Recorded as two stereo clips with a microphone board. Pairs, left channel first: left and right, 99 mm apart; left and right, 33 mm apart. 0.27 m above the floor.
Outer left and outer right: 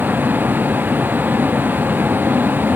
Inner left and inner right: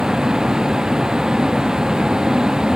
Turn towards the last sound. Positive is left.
turn(degrees=-20)  # may be behind; listen again after turning